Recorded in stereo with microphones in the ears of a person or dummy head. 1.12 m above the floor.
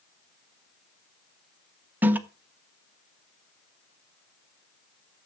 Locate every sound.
2.0 s a toilet flushing: 10° right (ahead or behind), 1.0 m